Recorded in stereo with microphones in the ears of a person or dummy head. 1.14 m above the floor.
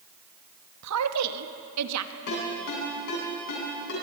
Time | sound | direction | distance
0.8 | a woman speaking | 90° right | 1.3 m
2.3 | a ringtone | 55° left (ahead or behind) | 7.5 m